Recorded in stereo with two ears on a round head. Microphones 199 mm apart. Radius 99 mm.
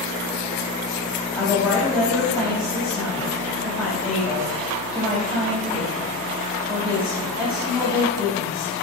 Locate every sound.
1.4 s a woman speaking: 5° right (ahead or behind), 4 m